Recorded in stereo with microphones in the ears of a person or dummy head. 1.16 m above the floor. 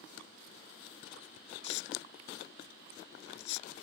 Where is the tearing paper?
65° left (ahead or behind).